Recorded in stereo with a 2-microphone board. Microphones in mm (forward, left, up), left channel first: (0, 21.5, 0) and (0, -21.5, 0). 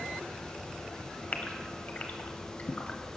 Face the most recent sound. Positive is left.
turn(degrees=45)  # may be behind; listen again after turning